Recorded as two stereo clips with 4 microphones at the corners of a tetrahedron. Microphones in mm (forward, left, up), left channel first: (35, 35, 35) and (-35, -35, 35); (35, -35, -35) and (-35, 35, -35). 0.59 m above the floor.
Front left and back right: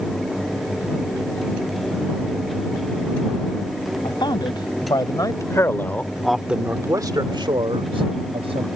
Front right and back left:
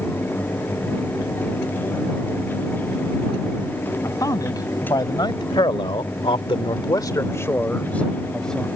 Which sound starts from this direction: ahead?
A man speaking, at 4.0 s.